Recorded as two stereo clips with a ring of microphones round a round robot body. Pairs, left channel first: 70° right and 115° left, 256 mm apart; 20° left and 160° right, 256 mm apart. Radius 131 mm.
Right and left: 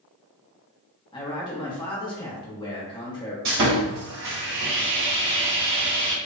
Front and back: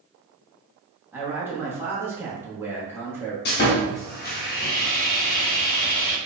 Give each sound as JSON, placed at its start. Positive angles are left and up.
{"t": 1.1, "sound": "a man speaking", "azimuth_deg": -90, "distance_m": 0.8}
{"t": 3.5, "sound": "sawing", "azimuth_deg": 70, "distance_m": 0.6}